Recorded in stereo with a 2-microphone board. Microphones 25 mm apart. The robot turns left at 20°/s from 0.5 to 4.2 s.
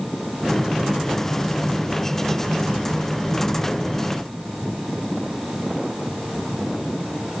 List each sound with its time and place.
Only background noise.